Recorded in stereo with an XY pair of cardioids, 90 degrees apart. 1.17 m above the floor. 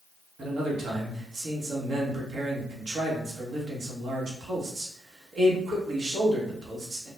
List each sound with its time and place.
0.4 s a man speaking: 60° right, 1.1 m